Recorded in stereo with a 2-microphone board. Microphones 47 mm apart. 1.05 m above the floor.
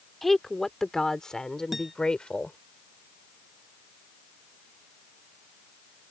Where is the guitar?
5° right (ahead or behind).